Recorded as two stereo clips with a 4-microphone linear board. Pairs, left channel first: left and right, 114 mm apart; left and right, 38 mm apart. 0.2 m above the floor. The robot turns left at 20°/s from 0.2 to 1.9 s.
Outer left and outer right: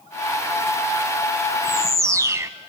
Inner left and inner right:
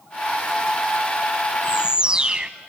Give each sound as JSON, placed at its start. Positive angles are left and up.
{"t": 1.6, "sound": "a bird", "side_deg": -30, "distance_m": 0.5}